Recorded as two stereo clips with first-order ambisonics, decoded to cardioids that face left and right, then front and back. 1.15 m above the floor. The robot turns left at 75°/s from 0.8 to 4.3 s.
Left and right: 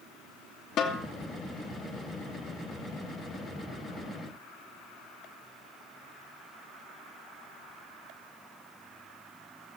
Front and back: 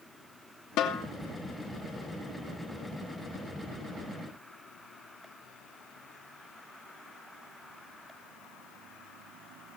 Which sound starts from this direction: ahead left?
A snare drum, at 0.8 s.